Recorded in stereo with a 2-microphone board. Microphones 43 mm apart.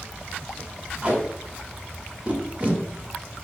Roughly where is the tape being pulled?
Right.